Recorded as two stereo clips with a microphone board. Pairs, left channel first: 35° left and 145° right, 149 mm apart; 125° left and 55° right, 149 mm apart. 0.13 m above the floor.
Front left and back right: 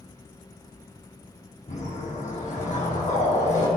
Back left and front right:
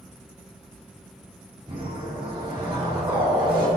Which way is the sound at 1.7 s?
Straight ahead.